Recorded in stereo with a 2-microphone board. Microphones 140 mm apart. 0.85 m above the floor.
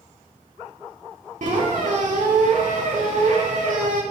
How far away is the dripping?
No dripping in this recording.